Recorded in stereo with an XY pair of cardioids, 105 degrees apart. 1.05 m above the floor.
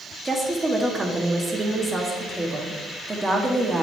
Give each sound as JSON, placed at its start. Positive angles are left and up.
{"t": 0.2, "sound": "a woman speaking", "azimuth_deg": -20, "distance_m": 1.6}